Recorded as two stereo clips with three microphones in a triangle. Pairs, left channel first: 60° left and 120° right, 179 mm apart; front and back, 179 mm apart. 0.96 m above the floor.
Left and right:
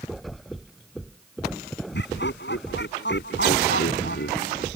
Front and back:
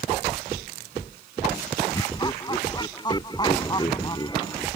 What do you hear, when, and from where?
1.9 s laughter: 65° left